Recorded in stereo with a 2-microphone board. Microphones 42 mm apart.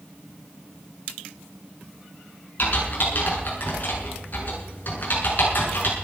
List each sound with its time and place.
2.6 s typing on a keyboard: 45° left (ahead or behind), 8 m